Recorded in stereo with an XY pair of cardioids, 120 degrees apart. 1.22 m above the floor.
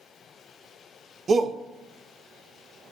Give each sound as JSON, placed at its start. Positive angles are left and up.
{"t": 1.3, "sound": "a shout", "azimuth_deg": -30, "distance_m": 1.0}